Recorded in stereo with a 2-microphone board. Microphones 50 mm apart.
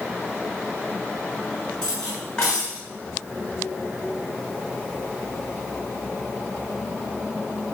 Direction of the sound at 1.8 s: 10° left (ahead or behind).